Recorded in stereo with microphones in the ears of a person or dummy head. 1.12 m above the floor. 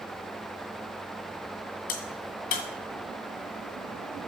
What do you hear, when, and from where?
1.9 s a crack: 45° left (ahead or behind), 2.0 m